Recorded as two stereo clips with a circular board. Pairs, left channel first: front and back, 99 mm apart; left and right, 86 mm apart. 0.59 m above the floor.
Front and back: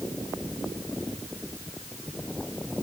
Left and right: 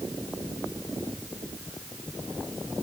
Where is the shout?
No shout in this recording.